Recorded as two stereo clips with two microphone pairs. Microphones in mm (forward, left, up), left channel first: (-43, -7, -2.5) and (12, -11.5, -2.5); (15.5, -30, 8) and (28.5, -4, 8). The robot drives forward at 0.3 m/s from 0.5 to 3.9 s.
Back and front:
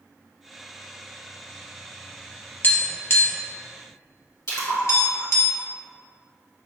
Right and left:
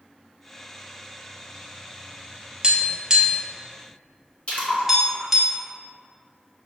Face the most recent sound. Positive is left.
turn(degrees=-165)